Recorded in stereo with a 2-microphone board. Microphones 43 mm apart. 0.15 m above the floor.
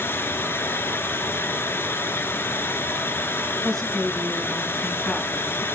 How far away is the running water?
About 0.9 m.